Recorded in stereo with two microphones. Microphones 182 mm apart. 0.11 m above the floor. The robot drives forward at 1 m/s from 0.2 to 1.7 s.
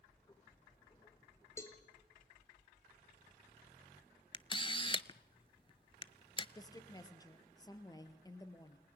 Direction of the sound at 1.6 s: 15° left (ahead or behind).